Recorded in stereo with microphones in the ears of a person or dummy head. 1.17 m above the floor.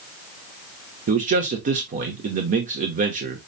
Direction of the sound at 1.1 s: 40° right (ahead or behind).